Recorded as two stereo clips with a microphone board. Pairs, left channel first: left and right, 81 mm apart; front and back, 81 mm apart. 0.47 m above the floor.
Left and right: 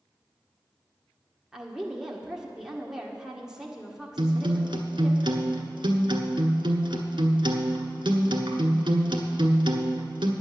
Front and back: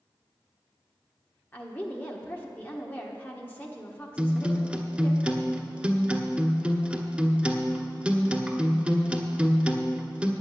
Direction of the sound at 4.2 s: 105° right.